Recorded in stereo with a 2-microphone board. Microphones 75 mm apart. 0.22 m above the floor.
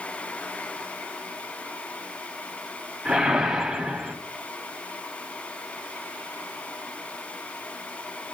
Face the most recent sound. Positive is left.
turn(degrees=-5)  # may be behind; listen again after turning